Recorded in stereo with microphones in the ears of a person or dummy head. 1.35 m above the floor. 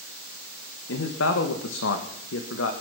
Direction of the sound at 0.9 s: 70° left (ahead or behind).